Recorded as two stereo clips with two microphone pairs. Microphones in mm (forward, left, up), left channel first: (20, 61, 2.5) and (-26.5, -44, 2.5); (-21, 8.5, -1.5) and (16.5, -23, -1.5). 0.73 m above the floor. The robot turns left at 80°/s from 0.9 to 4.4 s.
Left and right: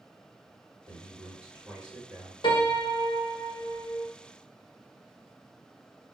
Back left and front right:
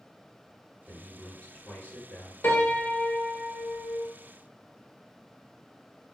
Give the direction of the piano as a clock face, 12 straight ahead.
8 o'clock.